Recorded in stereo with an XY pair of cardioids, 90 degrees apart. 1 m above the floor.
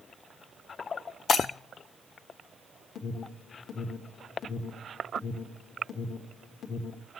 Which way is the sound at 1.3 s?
65° left.